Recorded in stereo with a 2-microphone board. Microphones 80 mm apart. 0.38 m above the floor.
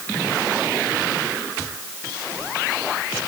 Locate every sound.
Only background noise.